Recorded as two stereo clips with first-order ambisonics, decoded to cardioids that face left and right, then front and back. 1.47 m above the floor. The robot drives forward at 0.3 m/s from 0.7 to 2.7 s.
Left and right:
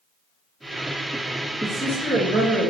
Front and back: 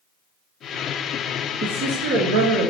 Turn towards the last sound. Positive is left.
turn(degrees=170)